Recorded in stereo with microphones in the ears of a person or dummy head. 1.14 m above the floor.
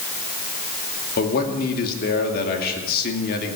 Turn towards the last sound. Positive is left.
turn(degrees=50)  # may be behind; listen again after turning